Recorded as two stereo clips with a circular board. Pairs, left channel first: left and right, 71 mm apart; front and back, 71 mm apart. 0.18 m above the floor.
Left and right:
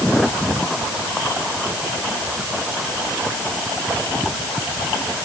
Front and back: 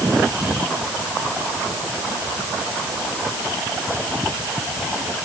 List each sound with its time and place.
Only background noise.